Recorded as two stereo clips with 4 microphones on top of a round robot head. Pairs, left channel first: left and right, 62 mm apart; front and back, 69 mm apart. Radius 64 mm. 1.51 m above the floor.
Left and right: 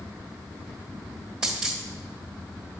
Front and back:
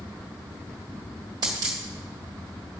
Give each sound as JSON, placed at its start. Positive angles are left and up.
{"t": 1.4, "sound": "a dropped coin", "azimuth_deg": -170, "distance_m": 1.2}